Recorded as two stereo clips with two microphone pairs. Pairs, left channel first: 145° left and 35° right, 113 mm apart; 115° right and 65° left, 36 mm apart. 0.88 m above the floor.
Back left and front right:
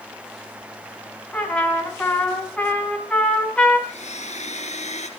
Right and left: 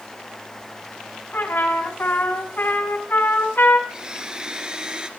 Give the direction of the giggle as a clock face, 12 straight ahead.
I don't hear a giggle.